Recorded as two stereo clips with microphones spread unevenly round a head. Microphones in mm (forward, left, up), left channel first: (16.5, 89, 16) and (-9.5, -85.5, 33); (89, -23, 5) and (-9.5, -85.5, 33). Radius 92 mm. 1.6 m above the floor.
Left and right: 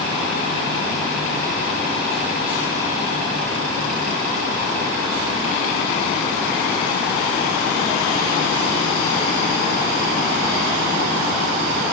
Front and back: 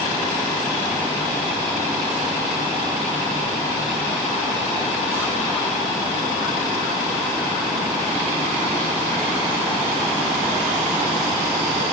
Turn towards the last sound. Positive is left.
No sound to turn to.